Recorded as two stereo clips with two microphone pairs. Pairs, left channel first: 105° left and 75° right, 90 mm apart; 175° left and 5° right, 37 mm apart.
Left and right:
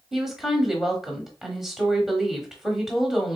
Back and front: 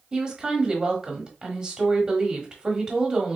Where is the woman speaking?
5° left, 1.0 m.